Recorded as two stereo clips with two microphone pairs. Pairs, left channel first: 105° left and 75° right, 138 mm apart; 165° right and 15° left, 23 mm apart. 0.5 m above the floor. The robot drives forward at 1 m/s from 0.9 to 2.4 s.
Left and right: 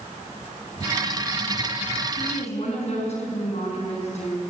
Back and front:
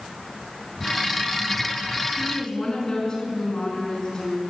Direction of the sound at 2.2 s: 135° left.